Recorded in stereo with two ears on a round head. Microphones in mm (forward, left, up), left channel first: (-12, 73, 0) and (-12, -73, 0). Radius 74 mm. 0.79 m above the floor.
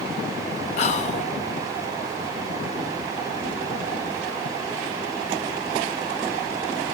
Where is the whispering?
45° left (ahead or behind), 0.7 m.